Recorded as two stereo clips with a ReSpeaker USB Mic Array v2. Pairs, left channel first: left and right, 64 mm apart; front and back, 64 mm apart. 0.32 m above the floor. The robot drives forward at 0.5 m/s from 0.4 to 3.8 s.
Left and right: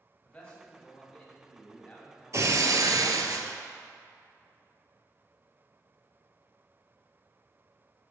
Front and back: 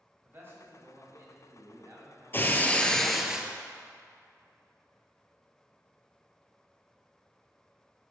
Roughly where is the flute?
No flute in this recording.